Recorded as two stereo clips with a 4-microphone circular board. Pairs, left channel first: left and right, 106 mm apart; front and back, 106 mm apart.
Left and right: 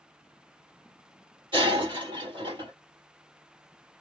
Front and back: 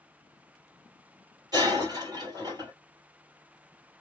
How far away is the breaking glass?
About 2.5 m.